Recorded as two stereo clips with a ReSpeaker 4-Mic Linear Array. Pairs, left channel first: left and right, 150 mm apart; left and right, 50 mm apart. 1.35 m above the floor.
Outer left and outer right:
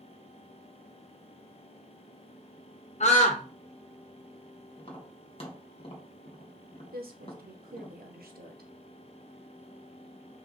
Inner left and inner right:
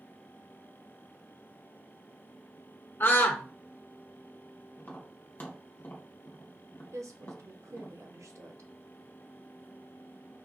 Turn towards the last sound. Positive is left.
turn(degrees=-80)